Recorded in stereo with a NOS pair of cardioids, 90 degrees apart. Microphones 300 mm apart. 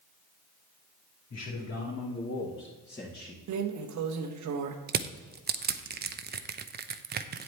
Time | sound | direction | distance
1.3 | a man speaking | 55° left | 3 m
3.5 | a drawer | 65° right | 1.2 m
4.9 | crushing | 30° right | 0.7 m